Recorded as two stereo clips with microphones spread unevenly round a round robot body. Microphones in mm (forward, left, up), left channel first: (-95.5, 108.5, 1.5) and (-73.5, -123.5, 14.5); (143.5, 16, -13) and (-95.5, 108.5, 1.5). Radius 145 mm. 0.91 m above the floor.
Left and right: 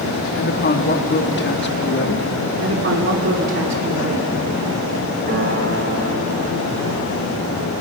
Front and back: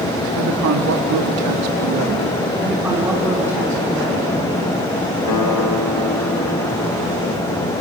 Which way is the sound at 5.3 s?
25° right.